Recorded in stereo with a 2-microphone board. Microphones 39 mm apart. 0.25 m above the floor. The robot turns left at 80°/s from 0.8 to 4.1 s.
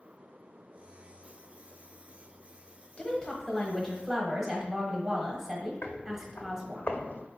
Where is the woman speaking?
30° left (ahead or behind), 1.0 m; by 6.8 s 10° right (ahead or behind), 1.0 m.